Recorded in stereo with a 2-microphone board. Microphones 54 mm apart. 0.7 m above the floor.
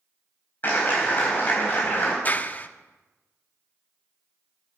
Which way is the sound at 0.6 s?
40° left (ahead or behind).